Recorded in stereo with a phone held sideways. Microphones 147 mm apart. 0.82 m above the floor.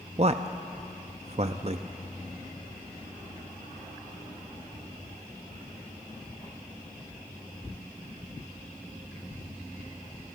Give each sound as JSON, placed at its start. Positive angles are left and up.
{"t": 0.2, "sound": "a man speaking", "side_deg": -45, "distance_m": 0.6}